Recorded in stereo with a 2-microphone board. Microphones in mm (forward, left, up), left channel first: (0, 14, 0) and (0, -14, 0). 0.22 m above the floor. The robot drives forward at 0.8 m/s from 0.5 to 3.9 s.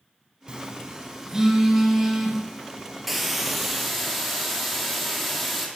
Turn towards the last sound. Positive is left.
turn(degrees=-5)  # may be behind; listen again after turning